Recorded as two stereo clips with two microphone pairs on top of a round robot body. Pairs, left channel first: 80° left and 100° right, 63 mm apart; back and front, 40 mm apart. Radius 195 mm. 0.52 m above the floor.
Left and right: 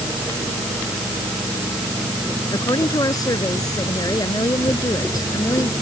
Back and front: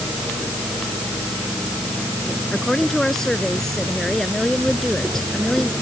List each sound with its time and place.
2.5 s a woman speaking: 100° left